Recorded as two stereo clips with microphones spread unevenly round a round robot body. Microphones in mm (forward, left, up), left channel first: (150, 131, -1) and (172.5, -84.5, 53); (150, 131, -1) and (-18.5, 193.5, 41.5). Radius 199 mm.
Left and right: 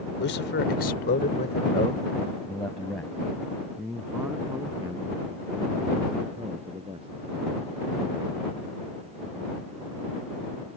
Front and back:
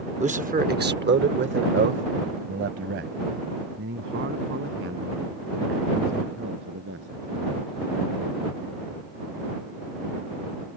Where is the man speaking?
105° left; by 7.2 s 160° right.